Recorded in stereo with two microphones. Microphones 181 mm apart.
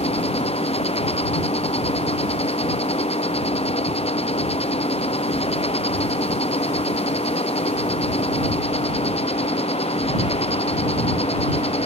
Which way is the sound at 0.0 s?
35° left (ahead or behind).